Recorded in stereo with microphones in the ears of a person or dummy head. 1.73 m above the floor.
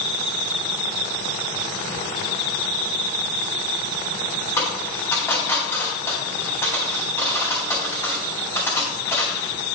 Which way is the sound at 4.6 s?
15° left (ahead or behind).